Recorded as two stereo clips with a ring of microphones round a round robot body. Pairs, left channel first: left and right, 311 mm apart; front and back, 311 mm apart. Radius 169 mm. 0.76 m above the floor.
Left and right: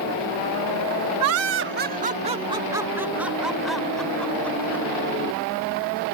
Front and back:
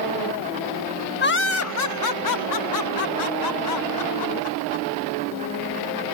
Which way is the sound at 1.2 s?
55° right.